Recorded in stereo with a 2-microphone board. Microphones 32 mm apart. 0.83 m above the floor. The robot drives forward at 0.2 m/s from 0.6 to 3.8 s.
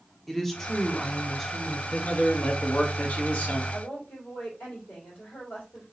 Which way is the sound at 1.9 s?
50° left (ahead or behind).